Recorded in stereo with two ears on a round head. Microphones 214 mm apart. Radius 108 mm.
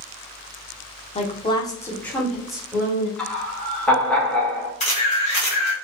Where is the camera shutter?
30° left (ahead or behind), 1.7 m.